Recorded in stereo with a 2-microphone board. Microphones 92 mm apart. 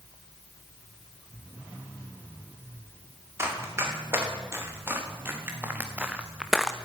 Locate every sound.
3.4 s running footsteps: 30° right (ahead or behind), 6 m; by 6.8 s 5° left (ahead or behind), 1.0 m